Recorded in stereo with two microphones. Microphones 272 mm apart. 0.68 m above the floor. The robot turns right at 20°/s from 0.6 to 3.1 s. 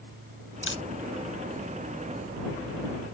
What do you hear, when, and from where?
0.6 s a camera shutter: 45° left (ahead or behind); by 0.8 s 50° left (ahead or behind)